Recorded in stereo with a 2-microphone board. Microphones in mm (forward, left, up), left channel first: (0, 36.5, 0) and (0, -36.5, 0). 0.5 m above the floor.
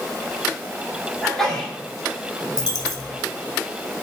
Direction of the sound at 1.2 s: 5° left (ahead or behind).